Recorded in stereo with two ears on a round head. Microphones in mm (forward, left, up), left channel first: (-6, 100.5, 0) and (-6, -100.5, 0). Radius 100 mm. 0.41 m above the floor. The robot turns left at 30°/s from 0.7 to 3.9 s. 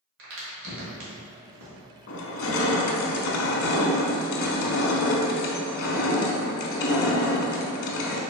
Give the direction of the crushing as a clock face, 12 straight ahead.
8 o'clock.